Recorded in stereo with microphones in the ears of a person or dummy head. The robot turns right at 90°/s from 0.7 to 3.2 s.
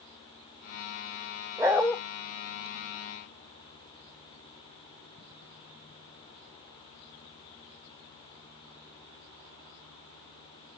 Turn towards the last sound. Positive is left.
turn(degrees=120)